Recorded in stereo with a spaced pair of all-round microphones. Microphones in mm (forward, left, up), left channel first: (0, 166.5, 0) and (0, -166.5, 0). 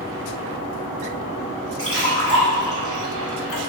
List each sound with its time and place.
1.8 s a splash: 40° left (ahead or behind), 1.2 m